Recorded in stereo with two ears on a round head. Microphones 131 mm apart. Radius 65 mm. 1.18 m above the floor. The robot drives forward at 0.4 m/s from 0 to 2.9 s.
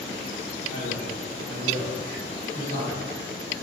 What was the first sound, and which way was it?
A man speaking, 85° right.